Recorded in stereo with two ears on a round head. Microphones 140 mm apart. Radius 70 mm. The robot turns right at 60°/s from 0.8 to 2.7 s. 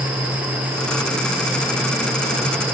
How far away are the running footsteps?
No running footsteps in this recording.